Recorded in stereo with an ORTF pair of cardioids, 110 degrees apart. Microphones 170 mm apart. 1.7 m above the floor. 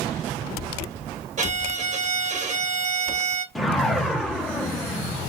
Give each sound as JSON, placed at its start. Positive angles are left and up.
{"t": 1.4, "sound": "a violin", "azimuth_deg": -50, "distance_m": 1.3}
{"t": 3.5, "sound": "a whoosh", "azimuth_deg": 0, "distance_m": 0.7}